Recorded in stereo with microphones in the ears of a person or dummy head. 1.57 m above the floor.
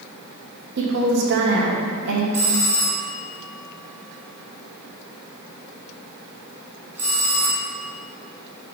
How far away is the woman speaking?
About 1.1 m.